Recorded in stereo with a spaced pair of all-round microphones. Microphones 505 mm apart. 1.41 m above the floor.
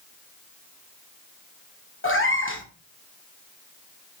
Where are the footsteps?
I don't hear footsteps.